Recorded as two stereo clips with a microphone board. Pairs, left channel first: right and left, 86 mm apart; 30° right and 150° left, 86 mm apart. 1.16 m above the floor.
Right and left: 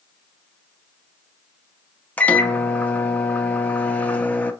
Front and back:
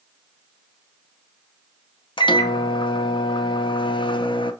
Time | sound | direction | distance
2.2 | a microwave | 20° right | 0.5 m